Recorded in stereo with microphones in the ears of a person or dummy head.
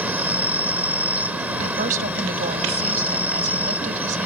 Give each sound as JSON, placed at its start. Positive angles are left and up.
{"t": 0.0, "sound": "an insect", "side_deg": -5}
{"t": 1.6, "sound": "a woman speaking", "side_deg": -50}